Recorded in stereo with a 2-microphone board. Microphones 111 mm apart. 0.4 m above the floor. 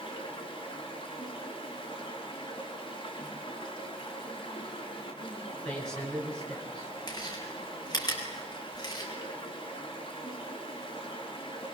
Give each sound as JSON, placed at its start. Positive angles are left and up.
{"t": 0.0, "sound": "running water", "side_deg": 45, "distance_m": 4.0}
{"t": 5.7, "sound": "a man speaking", "side_deg": 10, "distance_m": 6.5}
{"t": 7.1, "sound": "chewing", "side_deg": 35, "distance_m": 4.5}